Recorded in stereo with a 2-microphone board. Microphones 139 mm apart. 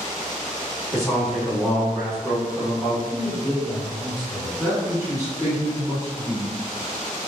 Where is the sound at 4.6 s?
25° right (ahead or behind), 1.7 m.